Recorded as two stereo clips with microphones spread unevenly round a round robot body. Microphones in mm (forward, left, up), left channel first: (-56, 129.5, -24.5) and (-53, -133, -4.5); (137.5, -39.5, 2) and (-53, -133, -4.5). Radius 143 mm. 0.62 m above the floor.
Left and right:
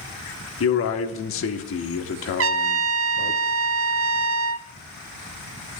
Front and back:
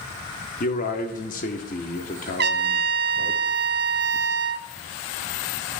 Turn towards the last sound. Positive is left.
turn(degrees=-120)